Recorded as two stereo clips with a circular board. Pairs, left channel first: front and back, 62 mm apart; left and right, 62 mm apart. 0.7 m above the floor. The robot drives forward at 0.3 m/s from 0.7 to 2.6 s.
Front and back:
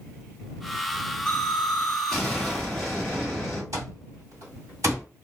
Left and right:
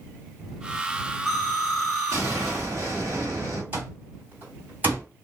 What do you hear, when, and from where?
1.3 s an explosion: 75° right, 2.0 m; by 3.6 s 90° right, 1.9 m
3.7 s an alarm clock: 145° right, 1.6 m